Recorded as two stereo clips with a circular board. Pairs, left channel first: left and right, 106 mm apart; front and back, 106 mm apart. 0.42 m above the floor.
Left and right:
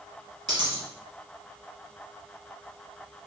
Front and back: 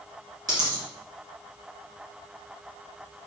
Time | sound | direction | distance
0.5 | a dropped coin | 130° right | 1.4 m